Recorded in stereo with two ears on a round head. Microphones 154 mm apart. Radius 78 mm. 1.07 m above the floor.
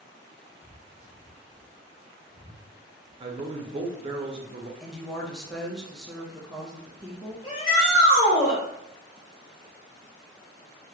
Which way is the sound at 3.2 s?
35° right (ahead or behind).